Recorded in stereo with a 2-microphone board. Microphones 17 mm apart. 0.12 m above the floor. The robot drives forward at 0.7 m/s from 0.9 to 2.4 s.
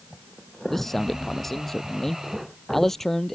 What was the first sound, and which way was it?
A man speaking, 15° left (ahead or behind).